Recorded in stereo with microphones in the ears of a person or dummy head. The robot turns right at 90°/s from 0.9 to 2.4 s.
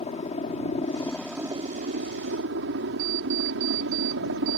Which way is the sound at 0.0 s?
150° left.